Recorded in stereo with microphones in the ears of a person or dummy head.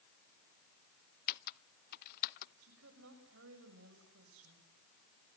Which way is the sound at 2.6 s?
70° right (ahead or behind).